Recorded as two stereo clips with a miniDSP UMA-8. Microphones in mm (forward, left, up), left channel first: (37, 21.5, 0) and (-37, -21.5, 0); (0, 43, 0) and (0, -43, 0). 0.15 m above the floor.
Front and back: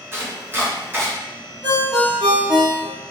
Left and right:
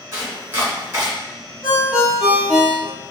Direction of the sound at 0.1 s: 120° right.